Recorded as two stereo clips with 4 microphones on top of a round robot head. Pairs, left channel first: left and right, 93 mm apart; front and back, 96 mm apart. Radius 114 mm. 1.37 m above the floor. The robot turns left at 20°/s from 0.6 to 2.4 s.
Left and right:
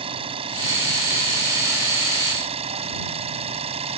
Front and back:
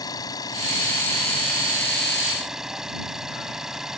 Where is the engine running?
60° right; by 4.0 s 95° right.